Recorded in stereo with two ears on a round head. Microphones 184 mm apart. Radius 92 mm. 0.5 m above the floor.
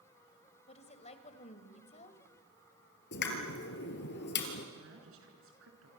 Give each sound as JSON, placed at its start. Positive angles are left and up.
{"t": 0.7, "sound": "a woman speaking", "side_deg": 35, "distance_m": 2.5}
{"t": 3.1, "sound": "a pop", "side_deg": 60, "distance_m": 3.5}
{"t": 4.8, "sound": "a woman speaking", "side_deg": -75, "distance_m": 6.0}